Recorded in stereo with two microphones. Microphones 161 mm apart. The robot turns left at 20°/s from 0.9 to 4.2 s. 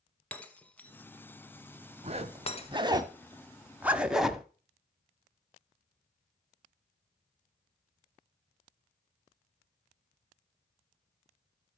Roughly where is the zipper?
Right.